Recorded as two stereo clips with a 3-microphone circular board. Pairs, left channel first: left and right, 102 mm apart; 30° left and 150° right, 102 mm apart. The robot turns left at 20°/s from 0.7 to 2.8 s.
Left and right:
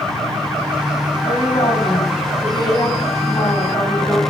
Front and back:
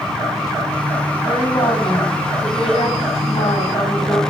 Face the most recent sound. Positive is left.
turn(degrees=45)